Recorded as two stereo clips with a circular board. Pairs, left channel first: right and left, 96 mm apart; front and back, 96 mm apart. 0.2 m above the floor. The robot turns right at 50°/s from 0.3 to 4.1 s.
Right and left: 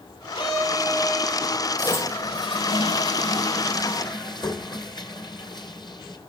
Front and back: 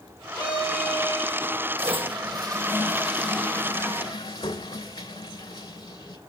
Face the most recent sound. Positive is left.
turn(degrees=-50)